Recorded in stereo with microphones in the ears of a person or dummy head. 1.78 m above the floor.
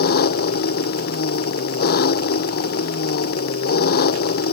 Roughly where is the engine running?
Left.